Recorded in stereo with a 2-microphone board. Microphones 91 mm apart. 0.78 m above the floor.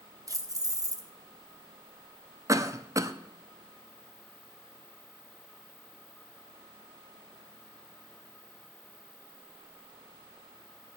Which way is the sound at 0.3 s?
40° right (ahead or behind).